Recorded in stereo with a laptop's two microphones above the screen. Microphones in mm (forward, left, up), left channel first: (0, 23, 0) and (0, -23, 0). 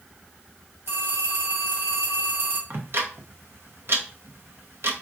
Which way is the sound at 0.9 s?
65° right (ahead or behind).